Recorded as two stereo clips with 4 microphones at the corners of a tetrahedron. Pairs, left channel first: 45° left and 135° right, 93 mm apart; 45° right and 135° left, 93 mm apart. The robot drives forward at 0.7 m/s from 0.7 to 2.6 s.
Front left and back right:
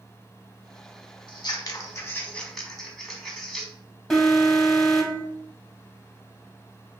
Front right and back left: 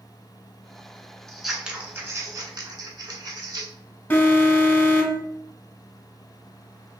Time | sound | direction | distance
1.3 | scissors | 40° left | 0.8 m
4.1 | an alarm | 30° right | 0.7 m